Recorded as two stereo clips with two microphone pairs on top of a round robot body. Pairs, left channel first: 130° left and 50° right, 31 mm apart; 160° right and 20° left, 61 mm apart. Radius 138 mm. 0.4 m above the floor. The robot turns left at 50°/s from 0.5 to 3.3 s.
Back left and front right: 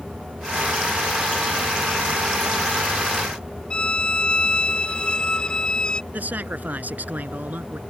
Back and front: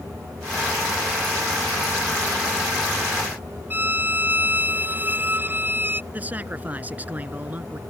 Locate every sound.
3.7 s a violin: 70° left
6.1 s a man speaking: 45° right